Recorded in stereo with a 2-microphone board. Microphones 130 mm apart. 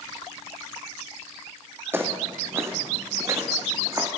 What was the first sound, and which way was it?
Footsteps, 15° right (ahead or behind).